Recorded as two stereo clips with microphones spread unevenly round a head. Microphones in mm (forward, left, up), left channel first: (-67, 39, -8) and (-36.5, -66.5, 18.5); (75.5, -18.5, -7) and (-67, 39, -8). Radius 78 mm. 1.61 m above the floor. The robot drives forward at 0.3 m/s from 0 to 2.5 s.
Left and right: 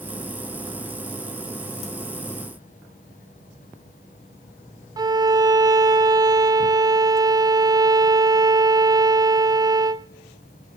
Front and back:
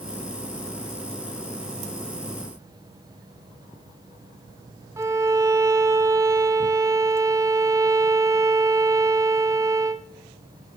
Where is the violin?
130° right, 0.6 m.